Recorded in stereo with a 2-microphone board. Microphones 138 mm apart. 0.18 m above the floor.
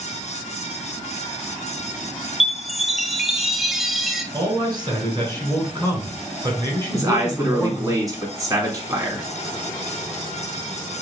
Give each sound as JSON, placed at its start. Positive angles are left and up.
{"t": 2.4, "sound": "a chime", "side_deg": 0, "distance_m": 0.5}
{"t": 4.3, "sound": "a man speaking", "side_deg": -30, "distance_m": 2.0}
{"t": 6.9, "sound": "a man speaking", "side_deg": -25, "distance_m": 1.6}